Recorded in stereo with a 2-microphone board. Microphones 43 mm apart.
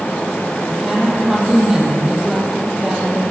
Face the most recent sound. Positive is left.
turn(degrees=-10)  # may be behind; listen again after turning